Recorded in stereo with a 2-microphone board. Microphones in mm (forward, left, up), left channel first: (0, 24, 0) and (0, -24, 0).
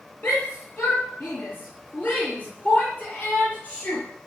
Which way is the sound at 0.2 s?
45° left (ahead or behind).